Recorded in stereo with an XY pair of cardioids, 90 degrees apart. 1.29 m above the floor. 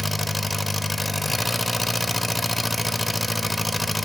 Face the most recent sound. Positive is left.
turn(degrees=20)